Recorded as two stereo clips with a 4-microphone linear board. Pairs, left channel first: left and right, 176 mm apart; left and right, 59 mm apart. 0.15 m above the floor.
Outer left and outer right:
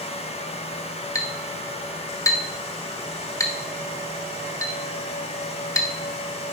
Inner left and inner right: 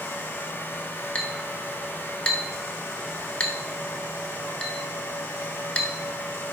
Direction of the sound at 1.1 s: 20° left (ahead or behind).